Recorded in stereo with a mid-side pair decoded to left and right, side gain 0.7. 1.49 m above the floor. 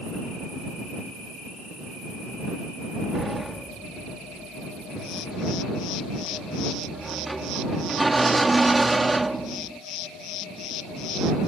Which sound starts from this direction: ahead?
A sliding door, at 3.1 s.